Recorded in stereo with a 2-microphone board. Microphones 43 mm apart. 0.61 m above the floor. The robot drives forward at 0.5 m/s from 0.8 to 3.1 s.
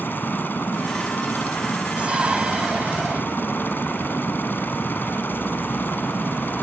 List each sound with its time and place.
0.0 s a helicopter: 50° left (ahead or behind)
2.0 s a shout: 35° right (ahead or behind)